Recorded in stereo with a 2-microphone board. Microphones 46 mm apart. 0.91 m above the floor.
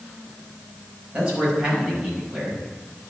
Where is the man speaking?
20° right (ahead or behind), 5 m.